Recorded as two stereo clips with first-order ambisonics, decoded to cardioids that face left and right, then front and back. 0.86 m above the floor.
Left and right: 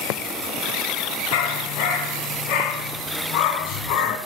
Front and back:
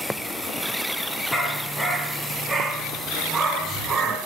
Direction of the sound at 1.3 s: 80° left.